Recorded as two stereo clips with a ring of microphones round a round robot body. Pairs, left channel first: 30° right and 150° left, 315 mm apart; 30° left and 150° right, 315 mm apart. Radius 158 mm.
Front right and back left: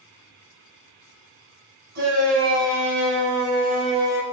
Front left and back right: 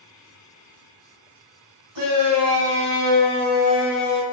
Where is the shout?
160° right, 3.5 m; by 4.2 s 70° left, 1.3 m.